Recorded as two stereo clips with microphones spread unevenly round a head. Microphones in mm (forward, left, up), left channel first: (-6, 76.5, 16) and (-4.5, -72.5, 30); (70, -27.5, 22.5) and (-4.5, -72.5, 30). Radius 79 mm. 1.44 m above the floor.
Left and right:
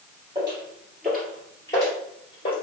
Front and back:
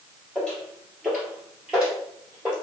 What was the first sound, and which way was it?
Footsteps, 60° right.